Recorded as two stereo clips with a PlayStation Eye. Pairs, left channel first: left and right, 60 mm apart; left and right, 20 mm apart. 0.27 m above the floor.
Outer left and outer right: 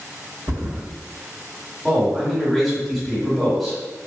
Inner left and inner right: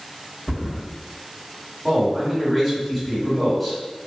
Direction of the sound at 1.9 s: Centre (ahead or behind).